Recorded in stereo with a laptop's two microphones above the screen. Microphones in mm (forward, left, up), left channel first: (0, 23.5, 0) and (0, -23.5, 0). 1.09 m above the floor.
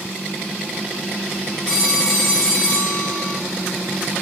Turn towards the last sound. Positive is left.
turn(degrees=5)  # may be behind; listen again after turning